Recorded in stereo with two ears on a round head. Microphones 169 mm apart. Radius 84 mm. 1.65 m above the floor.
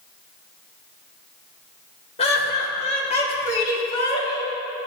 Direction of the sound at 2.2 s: 30° left (ahead or behind).